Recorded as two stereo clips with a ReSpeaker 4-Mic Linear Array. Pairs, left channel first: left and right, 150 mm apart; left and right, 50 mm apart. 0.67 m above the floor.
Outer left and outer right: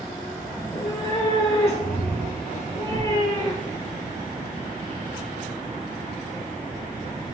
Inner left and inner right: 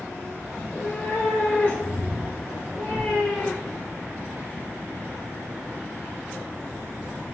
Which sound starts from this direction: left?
A cat meowing, at 0.6 s.